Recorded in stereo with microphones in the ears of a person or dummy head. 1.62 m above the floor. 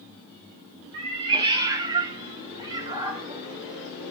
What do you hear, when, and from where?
0.9 s a cat meowing: 20° right (ahead or behind), 0.9 m; by 4.1 s 15° right (ahead or behind), 2 m